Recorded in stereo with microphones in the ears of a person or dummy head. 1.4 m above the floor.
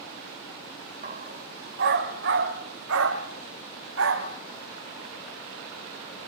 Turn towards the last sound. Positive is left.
turn(degrees=-65)  # may be behind; listen again after turning